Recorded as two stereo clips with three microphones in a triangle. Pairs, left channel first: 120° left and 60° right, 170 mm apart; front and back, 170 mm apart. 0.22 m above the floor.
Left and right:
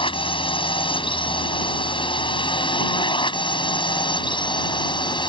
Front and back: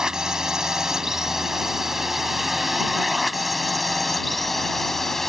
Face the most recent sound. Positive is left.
turn(degrees=85)